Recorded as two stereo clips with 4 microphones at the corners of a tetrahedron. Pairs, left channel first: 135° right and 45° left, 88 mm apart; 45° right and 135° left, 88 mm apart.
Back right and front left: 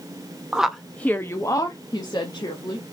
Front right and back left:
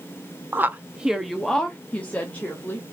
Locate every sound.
0.5 s a woman speaking: 115° left, 0.6 m; by 2.8 s 110° right, 1.3 m